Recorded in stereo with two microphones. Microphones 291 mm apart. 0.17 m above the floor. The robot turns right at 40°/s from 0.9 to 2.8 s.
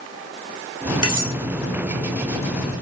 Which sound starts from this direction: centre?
Cutlery clinking, at 1.0 s.